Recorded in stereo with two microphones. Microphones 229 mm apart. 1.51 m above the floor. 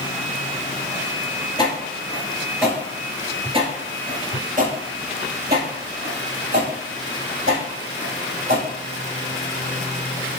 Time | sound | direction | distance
1.6 | footsteps | 20° left (ahead or behind) | 1.5 m